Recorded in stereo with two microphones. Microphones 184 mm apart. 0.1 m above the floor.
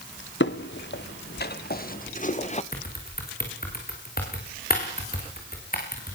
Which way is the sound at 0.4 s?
75° left (ahead or behind).